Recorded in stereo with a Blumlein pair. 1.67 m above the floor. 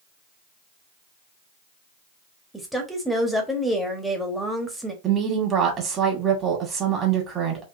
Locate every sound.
2.5 s a woman speaking: straight ahead, 1.1 m
5.0 s a woman speaking: 25° right, 1.6 m